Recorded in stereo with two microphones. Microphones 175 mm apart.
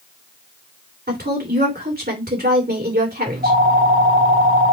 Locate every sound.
1.1 s a woman speaking: 65° right (ahead or behind), 3 m
3.3 s a phone ringing: 60° right (ahead or behind), 2 m